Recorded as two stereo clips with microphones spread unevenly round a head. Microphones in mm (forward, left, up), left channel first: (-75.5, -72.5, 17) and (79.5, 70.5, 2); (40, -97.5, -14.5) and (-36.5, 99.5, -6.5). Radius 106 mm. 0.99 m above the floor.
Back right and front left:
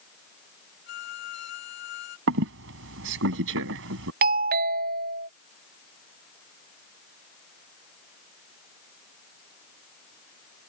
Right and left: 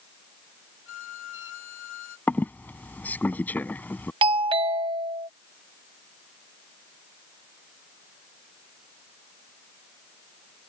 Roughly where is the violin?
Right.